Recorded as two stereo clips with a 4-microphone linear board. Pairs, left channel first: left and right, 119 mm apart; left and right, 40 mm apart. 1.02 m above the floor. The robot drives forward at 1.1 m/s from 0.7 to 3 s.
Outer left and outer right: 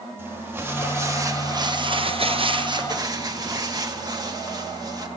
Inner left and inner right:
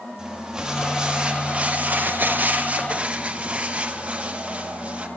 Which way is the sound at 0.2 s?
20° right (ahead or behind).